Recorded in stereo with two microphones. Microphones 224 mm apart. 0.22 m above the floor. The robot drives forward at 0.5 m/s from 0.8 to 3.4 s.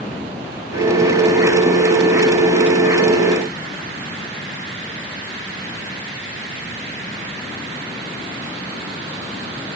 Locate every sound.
Only background noise.